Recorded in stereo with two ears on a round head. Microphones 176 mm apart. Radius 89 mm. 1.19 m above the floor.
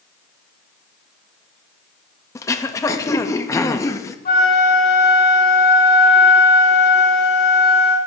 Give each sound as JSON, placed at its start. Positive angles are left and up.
{"t": 2.4, "sound": "throat clearing", "side_deg": 15, "distance_m": 0.5}
{"t": 4.2, "sound": "a flute", "side_deg": 40, "distance_m": 2.5}